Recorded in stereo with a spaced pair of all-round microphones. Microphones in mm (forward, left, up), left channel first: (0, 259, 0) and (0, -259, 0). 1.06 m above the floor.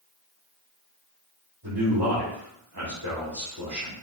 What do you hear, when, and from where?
1.6 s a man speaking: 45° right (ahead or behind), 3 m